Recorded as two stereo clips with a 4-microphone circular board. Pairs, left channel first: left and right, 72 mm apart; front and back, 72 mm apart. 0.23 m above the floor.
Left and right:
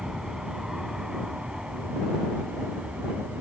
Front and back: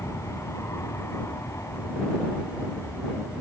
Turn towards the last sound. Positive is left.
turn(degrees=-20)